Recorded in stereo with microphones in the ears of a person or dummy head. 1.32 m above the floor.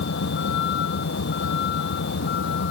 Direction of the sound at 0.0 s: 60° left (ahead or behind).